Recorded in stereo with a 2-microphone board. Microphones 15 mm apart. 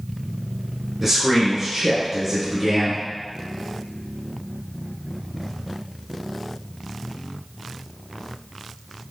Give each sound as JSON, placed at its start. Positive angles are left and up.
{"t": 1.0, "sound": "a man speaking", "side_deg": -10, "distance_m": 1.2}